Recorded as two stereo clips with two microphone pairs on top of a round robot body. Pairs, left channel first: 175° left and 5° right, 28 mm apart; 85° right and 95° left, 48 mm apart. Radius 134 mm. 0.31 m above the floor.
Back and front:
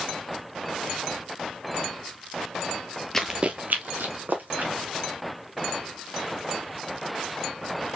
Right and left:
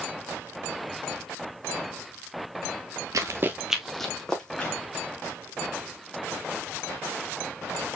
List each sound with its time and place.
3.1 s running footsteps: 100° left, 0.6 m; by 4.7 s 10° right, 2 m